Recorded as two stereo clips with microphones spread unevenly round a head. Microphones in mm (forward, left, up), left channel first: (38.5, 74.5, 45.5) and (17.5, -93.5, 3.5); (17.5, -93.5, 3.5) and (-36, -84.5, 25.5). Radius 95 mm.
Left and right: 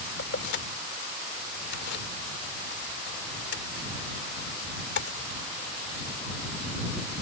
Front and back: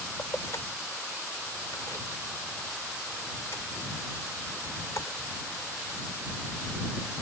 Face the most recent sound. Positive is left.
turn(degrees=70)